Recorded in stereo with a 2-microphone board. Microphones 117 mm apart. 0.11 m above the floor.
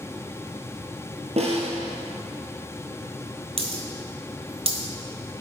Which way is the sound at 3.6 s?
55° right (ahead or behind).